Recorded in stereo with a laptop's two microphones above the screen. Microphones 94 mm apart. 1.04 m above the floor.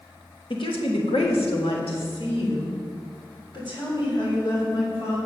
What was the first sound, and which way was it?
A woman speaking, 60° left (ahead or behind).